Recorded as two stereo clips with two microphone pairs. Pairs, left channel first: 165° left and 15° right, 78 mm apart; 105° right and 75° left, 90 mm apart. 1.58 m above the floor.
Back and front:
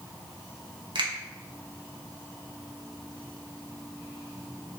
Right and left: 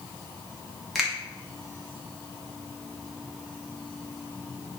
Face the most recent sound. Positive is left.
turn(degrees=-10)